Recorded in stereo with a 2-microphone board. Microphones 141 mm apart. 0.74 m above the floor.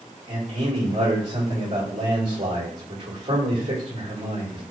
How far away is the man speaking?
About 2.5 m.